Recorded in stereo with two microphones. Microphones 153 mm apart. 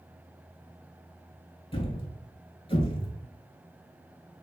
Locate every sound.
1.7 s a thud: 35° left (ahead or behind), 0.7 m